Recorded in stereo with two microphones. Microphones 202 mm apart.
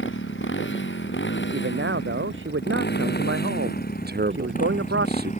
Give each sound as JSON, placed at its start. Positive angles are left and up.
{"t": 0.0, "sound": "a motorcycle", "side_deg": 70}
{"t": 1.5, "sound": "a man speaking", "side_deg": -75}
{"t": 4.1, "sound": "a man speaking", "side_deg": -50}